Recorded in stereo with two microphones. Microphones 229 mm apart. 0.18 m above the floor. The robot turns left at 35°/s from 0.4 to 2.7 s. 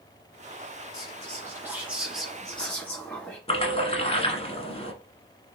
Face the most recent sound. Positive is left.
turn(degrees=25)  # may be behind; listen again after turning